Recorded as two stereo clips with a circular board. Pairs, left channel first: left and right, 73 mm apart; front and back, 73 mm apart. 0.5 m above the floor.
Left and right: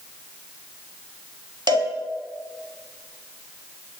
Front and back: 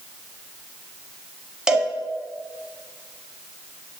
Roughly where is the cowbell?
Right.